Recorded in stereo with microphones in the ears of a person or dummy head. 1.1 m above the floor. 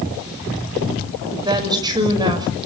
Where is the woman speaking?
25° right (ahead or behind), 6 m.